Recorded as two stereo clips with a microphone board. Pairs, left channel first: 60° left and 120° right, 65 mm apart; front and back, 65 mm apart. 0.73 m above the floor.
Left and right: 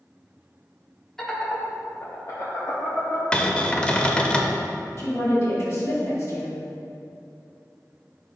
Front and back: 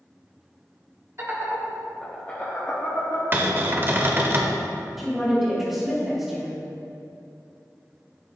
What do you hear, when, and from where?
1.2 s laughter: 140° left, 1.6 m; by 3.2 s 20° left, 2 m
3.3 s a cupboard door: 130° left, 0.6 m
5.0 s a woman speaking: 95° left, 1.9 m